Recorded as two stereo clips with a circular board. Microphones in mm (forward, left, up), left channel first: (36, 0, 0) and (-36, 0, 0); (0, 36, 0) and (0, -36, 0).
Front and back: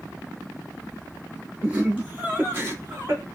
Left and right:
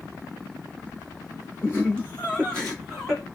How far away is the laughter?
About 1.7 m.